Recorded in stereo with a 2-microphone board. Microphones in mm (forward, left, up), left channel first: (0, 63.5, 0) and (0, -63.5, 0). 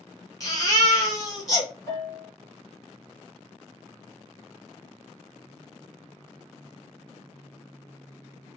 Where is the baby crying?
30° left (ahead or behind), 1.9 m.